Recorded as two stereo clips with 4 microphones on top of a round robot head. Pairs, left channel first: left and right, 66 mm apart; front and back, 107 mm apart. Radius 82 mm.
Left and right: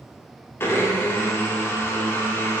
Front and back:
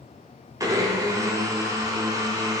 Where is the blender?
130° left, 1.4 m.